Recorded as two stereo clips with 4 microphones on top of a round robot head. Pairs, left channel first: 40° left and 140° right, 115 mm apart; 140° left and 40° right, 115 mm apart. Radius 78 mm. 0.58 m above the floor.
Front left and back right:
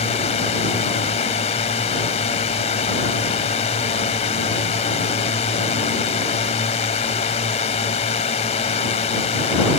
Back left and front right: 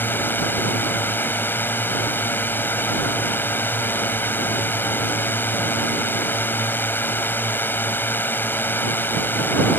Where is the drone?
70° left.